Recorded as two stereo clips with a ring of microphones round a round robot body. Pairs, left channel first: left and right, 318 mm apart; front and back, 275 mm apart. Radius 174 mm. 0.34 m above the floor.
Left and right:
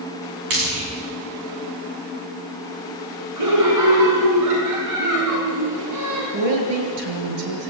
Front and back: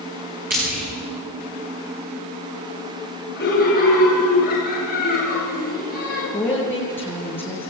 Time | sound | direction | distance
0.5 | frying | 115° right | 7.5 m
3.4 | laughter | 60° right | 4.5 m
6.3 | a woman speaking | 85° right | 7 m